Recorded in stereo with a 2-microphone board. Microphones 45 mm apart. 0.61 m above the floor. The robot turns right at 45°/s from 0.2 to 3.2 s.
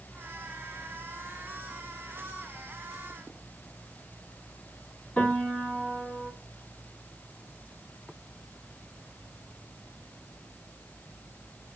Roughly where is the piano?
Left.